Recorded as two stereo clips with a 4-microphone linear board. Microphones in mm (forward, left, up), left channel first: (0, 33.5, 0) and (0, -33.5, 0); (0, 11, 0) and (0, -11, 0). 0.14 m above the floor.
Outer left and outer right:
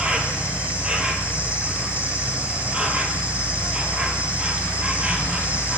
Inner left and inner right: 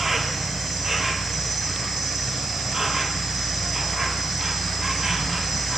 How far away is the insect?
About 2.0 m.